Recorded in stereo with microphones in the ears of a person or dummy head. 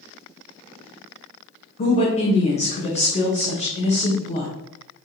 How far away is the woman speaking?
About 1.1 m.